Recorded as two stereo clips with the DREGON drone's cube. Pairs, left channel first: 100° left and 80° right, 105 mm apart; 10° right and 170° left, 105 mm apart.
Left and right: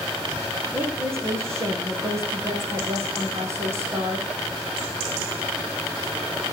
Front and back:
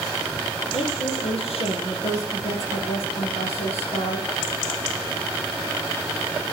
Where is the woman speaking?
15° right, 5 m.